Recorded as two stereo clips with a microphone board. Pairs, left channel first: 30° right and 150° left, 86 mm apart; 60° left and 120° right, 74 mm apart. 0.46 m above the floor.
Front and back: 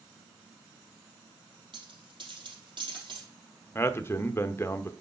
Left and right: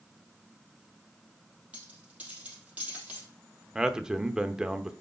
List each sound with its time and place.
1.7 s a dropped coin: 170° left, 3.5 m
3.8 s a man speaking: 45° right, 0.8 m